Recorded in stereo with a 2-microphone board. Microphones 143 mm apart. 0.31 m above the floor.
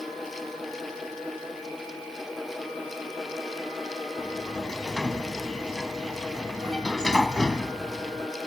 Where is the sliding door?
5° left (ahead or behind).